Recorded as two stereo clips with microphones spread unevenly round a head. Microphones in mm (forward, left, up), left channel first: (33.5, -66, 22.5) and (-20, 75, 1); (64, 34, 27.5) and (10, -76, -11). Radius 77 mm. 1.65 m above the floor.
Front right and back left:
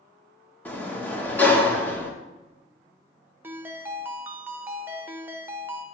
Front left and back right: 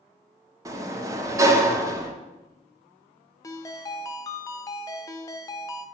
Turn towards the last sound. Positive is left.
turn(degrees=30)